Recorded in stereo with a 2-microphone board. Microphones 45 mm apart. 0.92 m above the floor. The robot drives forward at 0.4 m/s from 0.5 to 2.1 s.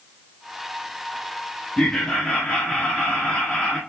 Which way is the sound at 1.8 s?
20° left (ahead or behind).